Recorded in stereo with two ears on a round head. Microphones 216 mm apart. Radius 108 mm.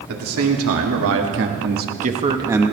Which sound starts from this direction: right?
A man speaking, at 0.1 s.